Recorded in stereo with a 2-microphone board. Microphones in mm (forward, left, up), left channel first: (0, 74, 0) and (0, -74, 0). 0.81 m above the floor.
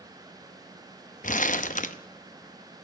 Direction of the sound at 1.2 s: 55° left (ahead or behind).